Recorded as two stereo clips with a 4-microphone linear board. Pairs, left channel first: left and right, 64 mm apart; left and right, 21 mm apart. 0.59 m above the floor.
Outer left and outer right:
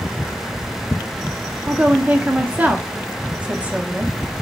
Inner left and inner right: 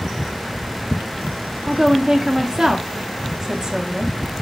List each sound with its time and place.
1.7 s a woman speaking: 25° right (ahead or behind), 0.7 m